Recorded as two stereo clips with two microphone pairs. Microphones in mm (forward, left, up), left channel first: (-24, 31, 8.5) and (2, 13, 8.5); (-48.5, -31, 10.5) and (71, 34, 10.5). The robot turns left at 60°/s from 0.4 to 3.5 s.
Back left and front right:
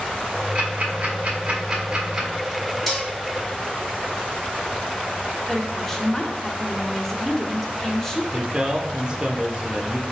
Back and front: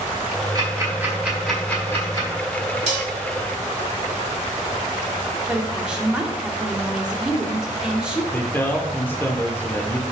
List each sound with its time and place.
0.6 s ticking: 5° right, 1.5 m; by 2.3 s 110° right, 1.5 m
2.9 s dishes clattering: 60° left, 1.3 m; by 3.1 s 45° left, 1.3 m
5.5 s a woman speaking: 95° left, 0.8 m
8.3 s a man speaking: 85° right, 0.9 m